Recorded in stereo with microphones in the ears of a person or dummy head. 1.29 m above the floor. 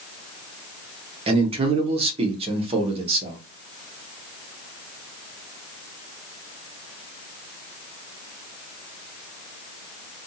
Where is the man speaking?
30° right (ahead or behind), 0.8 m.